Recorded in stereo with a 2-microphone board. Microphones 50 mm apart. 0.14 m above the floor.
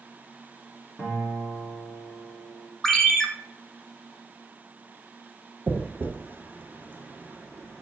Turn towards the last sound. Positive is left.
turn(degrees=-40)  # may be behind; listen again after turning